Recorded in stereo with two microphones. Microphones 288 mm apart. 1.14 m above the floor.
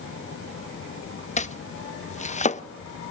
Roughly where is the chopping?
Left.